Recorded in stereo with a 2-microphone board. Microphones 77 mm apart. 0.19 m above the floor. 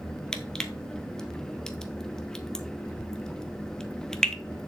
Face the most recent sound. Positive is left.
turn(degrees=10)  # may be behind; listen again after turning